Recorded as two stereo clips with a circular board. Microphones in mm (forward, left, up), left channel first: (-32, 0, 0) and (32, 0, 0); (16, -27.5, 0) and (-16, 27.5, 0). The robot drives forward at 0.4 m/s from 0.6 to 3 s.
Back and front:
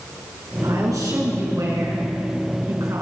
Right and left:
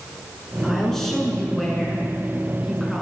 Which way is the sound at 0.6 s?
20° left.